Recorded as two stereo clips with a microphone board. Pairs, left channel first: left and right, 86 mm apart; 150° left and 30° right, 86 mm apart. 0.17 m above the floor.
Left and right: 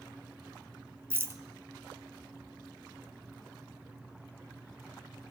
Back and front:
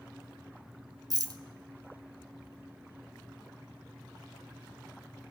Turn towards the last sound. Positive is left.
turn(degrees=-40)